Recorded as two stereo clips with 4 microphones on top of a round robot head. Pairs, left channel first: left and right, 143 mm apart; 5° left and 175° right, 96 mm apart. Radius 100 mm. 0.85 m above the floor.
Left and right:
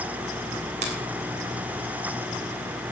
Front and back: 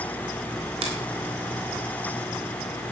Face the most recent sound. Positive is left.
turn(degrees=-140)